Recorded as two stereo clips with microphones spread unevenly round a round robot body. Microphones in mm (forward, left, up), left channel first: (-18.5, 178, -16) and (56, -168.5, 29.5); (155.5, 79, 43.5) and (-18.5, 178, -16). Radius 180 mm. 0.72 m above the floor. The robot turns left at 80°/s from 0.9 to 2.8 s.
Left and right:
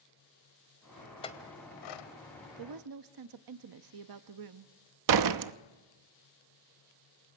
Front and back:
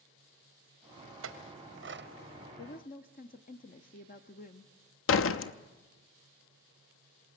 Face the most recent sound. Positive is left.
turn(degrees=-50)